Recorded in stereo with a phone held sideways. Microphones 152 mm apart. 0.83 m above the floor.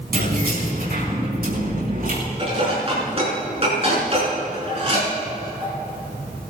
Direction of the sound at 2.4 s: 40° right (ahead or behind).